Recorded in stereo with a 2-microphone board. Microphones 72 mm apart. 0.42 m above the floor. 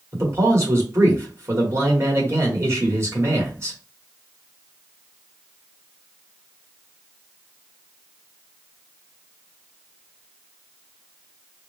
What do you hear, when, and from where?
0.1 s a man speaking: 40° right (ahead or behind), 1.3 m